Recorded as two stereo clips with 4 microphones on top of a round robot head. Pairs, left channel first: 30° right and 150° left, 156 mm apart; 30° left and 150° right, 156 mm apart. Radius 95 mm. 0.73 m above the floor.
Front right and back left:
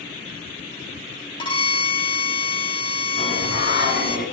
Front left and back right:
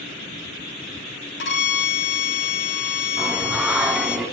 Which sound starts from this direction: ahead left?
A violin, at 1.4 s.